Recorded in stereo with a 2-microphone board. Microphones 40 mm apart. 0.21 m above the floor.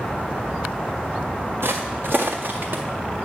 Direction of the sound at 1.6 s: 80° right.